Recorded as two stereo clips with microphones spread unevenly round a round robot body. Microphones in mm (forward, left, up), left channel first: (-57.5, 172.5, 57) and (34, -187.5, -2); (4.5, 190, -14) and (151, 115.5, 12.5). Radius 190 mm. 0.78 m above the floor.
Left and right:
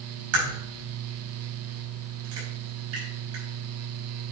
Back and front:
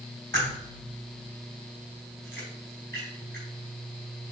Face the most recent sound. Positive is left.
turn(degrees=-125)